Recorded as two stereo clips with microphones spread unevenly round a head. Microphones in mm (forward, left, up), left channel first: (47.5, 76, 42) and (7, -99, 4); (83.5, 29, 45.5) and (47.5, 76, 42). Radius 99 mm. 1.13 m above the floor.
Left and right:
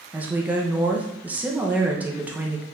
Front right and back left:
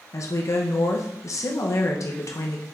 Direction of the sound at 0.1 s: 25° right.